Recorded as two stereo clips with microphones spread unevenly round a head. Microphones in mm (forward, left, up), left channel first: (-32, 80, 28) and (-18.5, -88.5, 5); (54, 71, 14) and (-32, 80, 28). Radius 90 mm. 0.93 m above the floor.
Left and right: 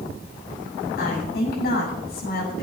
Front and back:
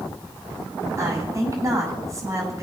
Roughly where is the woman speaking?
Behind left.